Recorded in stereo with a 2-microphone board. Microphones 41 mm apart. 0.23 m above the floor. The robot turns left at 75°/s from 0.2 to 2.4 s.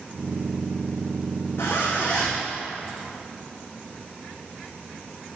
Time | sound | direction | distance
1.6 | a zipper | 65° left | 4 m